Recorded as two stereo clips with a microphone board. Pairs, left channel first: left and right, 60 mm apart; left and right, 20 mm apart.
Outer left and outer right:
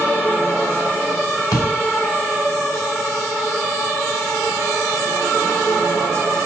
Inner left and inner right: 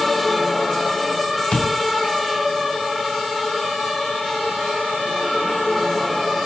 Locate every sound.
1.5 s a door slam: 85° left, 5.5 m